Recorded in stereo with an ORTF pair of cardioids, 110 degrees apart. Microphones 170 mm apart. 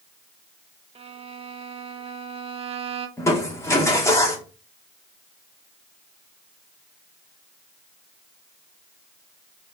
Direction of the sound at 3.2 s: 15° left.